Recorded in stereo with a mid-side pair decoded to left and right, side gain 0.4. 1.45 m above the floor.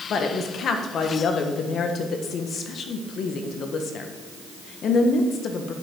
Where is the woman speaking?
65° left, 1.5 m.